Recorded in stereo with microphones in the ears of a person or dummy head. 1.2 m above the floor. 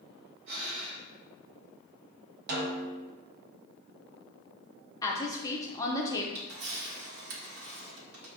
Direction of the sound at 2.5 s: 50° right (ahead or behind).